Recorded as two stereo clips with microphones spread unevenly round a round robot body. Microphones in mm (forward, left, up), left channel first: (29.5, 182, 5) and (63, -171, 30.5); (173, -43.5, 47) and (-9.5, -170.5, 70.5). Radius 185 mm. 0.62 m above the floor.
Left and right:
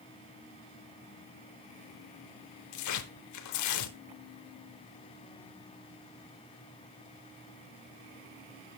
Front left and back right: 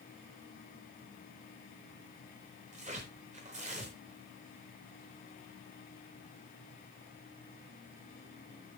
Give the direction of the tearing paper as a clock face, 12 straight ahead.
7 o'clock.